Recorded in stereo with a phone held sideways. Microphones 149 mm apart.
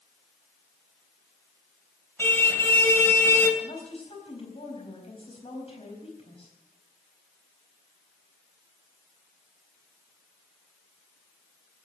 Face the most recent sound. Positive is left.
turn(degrees=40)  # may be behind; listen again after turning